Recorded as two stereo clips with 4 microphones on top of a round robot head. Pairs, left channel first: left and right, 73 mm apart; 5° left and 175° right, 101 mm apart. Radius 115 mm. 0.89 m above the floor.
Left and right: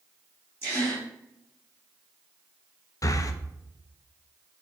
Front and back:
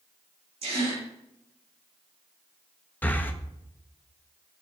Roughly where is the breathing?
Left.